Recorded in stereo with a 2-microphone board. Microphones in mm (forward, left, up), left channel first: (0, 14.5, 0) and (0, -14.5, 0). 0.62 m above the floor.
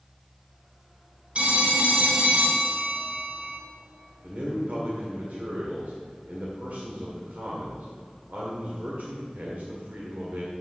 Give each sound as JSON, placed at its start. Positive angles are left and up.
{"t": 1.4, "sound": "a phone ringing", "side_deg": -50, "distance_m": 1.5}
{"t": 4.2, "sound": "a man speaking", "side_deg": -65, "distance_m": 1.8}